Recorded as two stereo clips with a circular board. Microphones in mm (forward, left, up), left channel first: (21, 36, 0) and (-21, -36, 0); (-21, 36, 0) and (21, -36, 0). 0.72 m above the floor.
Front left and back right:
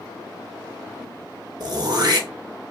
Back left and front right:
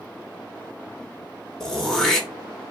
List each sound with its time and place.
1.6 s throat clearing: 155° right, 0.7 m